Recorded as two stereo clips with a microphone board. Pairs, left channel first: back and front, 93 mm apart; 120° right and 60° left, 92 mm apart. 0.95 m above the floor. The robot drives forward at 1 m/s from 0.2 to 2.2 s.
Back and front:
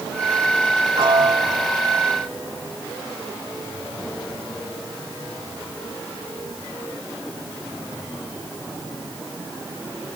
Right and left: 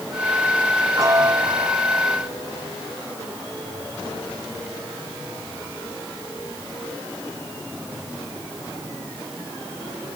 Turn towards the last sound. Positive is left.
turn(degrees=115)